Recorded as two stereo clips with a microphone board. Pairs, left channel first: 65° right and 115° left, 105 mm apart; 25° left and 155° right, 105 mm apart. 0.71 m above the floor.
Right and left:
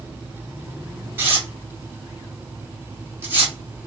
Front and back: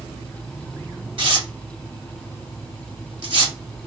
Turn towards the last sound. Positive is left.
turn(degrees=180)